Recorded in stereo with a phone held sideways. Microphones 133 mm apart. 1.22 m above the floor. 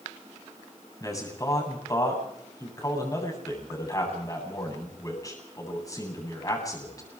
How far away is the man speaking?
About 9 m.